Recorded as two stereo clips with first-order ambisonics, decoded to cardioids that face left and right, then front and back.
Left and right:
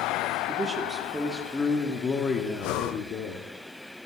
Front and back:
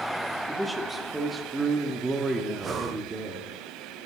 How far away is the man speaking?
About 1.3 m.